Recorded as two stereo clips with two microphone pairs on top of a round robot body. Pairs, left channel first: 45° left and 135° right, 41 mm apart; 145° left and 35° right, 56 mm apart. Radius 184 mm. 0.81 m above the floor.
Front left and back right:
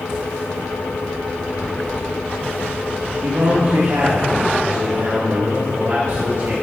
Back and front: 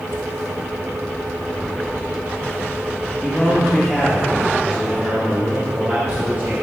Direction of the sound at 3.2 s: 145° right.